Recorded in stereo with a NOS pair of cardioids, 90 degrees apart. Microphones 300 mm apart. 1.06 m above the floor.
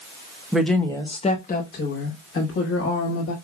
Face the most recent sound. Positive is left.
turn(degrees=60)